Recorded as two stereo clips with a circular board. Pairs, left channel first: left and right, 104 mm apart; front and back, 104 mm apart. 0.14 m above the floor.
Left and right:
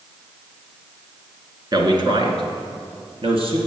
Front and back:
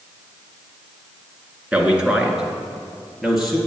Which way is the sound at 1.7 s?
105° right.